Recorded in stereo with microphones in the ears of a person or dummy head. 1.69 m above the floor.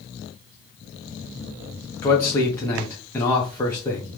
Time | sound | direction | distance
2.0 | a man speaking | 15° left (ahead or behind) | 0.7 m